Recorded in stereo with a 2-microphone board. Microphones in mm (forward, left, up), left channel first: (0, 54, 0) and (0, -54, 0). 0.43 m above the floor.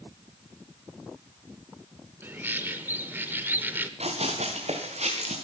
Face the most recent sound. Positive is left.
turn(degrees=-80)